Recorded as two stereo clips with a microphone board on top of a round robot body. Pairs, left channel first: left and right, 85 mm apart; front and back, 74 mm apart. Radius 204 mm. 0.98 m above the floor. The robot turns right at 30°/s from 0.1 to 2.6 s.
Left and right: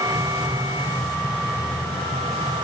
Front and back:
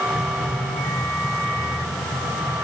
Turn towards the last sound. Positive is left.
No sound to turn to.